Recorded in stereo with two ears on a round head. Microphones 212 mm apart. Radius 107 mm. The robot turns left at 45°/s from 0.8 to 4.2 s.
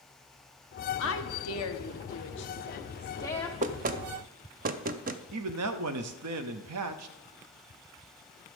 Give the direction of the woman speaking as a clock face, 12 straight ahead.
8 o'clock.